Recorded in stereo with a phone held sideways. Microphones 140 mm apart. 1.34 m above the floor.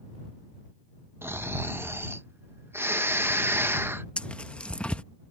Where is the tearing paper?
5° left (ahead or behind).